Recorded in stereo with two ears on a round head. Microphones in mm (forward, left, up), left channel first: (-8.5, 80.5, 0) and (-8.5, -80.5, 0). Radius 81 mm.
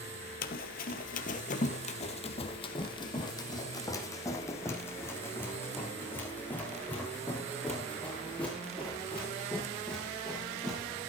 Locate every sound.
0.4 s running footsteps: 55° left (ahead or behind), 1.7 m; by 10.8 s 5° left (ahead or behind), 9.5 m